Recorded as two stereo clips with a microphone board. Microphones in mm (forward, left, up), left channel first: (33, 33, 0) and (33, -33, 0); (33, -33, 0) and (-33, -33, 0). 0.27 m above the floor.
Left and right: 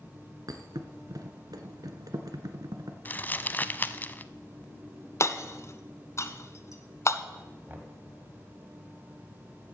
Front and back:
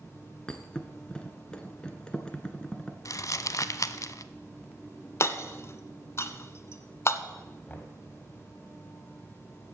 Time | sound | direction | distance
0.5 | a thud | 75° right | 1.2 m
3.0 | crumpling | 30° left | 0.5 m
5.2 | hammering | 45° left | 0.8 m
7.7 | knocking | 45° right | 1.6 m